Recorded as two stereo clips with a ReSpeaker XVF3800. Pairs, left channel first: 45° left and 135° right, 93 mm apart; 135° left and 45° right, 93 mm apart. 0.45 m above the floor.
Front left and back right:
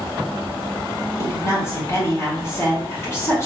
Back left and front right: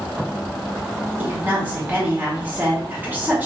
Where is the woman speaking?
10° left, 1.5 m.